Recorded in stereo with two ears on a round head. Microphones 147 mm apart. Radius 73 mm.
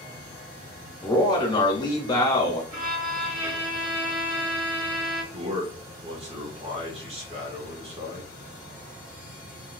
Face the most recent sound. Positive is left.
turn(degrees=-35)  # may be behind; listen again after turning